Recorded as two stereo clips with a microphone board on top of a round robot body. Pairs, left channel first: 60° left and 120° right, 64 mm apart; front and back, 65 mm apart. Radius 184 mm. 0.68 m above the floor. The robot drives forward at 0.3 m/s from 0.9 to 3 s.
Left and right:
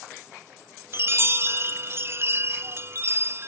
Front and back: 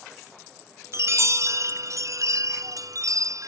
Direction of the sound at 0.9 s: 155° right.